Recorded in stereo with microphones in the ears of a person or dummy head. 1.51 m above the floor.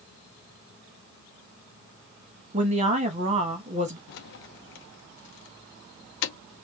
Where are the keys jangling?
55° left (ahead or behind), 0.7 m.